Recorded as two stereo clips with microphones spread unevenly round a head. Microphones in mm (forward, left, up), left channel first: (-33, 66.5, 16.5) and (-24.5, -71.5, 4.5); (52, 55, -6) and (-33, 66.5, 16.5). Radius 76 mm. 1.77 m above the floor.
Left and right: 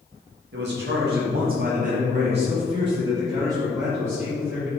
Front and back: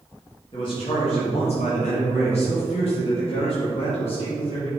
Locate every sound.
0.5 s a man speaking: 70° right, 2 m; by 4.7 s 5° right, 3.5 m